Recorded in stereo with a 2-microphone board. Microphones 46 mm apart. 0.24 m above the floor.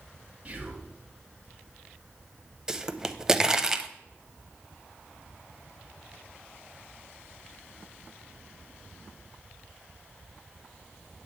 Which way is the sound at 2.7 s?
15° right (ahead or behind).